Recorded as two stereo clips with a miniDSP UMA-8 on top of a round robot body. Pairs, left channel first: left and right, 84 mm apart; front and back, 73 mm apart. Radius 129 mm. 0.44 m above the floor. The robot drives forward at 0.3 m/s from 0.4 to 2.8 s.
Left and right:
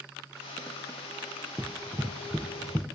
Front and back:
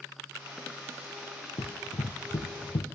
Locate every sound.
1.6 s running footsteps: 20° right, 0.9 m; by 2.9 s straight ahead, 1.1 m